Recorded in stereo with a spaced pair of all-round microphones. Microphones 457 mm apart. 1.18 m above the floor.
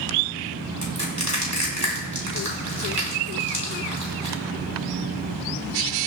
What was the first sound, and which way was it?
Crushing, 40° right (ahead or behind).